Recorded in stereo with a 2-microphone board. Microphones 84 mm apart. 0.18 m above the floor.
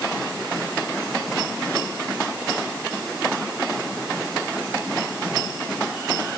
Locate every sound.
Only background noise.